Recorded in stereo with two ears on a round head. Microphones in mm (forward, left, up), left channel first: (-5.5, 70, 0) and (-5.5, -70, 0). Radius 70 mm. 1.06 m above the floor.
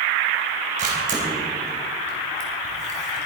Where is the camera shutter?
50° right (ahead or behind), 3.5 m.